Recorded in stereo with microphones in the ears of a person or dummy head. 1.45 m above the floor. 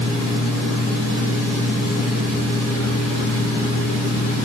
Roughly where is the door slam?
I don't hear a door slam.